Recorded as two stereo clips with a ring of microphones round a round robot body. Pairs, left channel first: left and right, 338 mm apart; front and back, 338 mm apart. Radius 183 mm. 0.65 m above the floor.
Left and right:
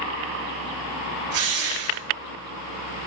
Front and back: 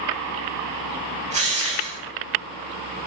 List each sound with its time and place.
1.3 s a drill: 110° right, 6.5 m